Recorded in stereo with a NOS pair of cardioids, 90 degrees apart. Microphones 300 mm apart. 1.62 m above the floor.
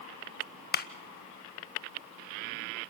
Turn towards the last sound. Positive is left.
turn(degrees=35)